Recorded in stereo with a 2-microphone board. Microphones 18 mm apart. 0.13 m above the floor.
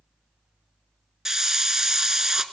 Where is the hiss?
25° right (ahead or behind), 0.5 m.